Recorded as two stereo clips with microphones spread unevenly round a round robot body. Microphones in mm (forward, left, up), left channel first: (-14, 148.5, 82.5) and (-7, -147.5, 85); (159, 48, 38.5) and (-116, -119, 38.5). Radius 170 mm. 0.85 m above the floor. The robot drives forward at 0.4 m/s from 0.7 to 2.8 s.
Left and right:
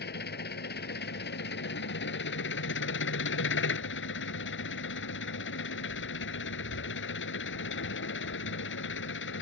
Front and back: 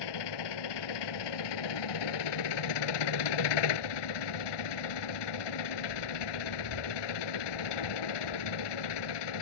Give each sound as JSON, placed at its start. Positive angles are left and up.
{"t": 0.0, "sound": "an engine running", "azimuth_deg": 30}